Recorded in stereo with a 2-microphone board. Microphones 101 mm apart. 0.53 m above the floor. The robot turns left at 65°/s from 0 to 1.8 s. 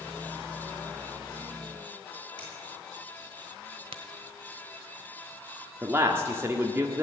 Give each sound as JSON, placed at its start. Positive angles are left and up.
{"t": 2.4, "sound": "a finger snap", "side_deg": 50, "distance_m": 7.0}
{"t": 3.9, "sound": "a crack", "side_deg": -70, "distance_m": 1.1}
{"t": 5.8, "sound": "a man speaking", "side_deg": -25, "distance_m": 1.2}